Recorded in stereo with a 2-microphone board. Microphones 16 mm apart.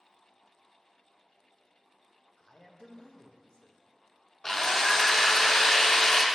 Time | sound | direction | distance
2.4 | a man speaking | 60° left (ahead or behind) | 0.7 m
4.4 | a drill | 40° left (ahead or behind) | 0.5 m